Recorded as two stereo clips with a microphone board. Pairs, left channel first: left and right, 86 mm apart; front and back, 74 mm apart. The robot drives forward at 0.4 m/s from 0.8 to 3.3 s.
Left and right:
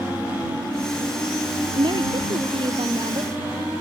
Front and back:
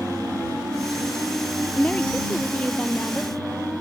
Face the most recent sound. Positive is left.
turn(degrees=-75)